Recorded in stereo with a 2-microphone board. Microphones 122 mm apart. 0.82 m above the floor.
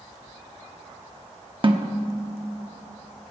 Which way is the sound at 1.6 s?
45° right (ahead or behind).